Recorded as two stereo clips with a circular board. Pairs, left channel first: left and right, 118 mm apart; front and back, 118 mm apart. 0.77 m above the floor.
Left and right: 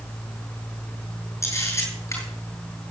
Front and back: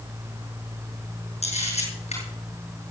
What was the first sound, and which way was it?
A camera shutter, 25° left.